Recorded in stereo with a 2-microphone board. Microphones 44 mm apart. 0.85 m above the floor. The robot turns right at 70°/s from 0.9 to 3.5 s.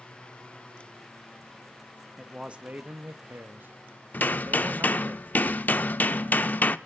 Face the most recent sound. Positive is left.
turn(degrees=40)  # may be behind; listen again after turning